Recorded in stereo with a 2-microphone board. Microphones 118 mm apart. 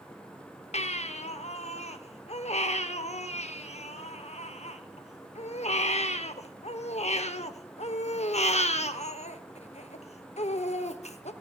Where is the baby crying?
75° left (ahead or behind), 0.7 m.